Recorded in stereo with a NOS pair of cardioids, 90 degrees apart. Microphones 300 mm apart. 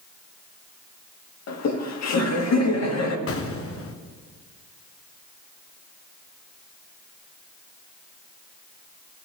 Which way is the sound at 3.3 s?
50° left.